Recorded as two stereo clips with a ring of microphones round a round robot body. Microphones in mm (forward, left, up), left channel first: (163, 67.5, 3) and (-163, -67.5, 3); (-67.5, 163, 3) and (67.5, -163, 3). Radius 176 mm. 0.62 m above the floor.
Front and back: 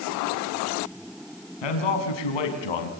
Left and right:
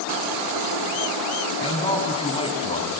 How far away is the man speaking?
About 5.5 m.